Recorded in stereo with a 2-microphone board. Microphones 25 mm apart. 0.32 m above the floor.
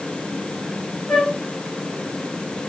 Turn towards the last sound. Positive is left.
turn(degrees=35)  # may be behind; listen again after turning